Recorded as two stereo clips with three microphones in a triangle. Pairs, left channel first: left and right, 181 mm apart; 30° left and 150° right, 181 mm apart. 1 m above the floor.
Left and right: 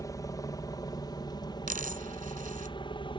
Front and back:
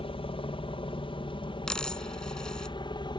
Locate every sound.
0.0 s a helicopter: 40° left; by 3.2 s 65° left
1.7 s a dropped coin: 55° right